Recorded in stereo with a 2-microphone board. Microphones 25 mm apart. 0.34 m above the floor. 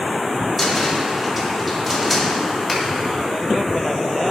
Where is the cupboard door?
Centre (ahead or behind), 2.0 m.